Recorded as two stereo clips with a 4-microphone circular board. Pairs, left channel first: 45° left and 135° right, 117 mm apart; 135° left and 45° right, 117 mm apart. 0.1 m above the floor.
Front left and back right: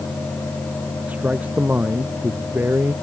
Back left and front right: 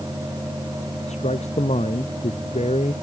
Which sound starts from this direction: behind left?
A man speaking, at 1.1 s.